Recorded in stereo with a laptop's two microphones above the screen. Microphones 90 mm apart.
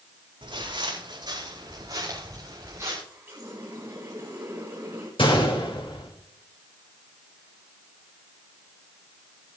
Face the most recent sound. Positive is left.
turn(degrees=70)  # may be behind; listen again after turning